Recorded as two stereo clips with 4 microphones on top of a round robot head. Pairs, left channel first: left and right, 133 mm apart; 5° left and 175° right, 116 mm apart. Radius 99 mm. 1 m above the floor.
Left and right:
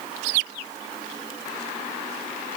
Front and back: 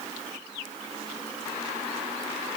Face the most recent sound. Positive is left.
No sound to turn to.